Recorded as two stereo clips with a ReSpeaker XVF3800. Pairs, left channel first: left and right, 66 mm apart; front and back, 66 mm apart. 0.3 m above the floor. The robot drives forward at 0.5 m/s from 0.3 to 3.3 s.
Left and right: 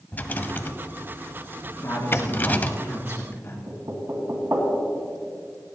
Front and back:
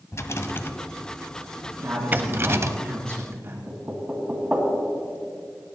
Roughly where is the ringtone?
I don't hear a ringtone.